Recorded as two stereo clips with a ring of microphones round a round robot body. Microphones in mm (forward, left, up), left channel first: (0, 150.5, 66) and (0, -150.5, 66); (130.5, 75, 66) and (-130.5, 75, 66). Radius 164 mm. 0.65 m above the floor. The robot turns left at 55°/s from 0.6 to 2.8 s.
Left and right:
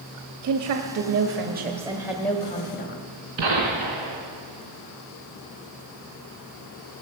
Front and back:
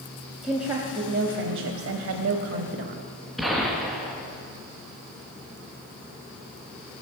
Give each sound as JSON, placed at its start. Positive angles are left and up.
{"t": 0.4, "sound": "a woman speaking", "azimuth_deg": -95, "distance_m": 0.9}
{"t": 3.4, "sound": "a gunshot", "azimuth_deg": -90, "distance_m": 2.5}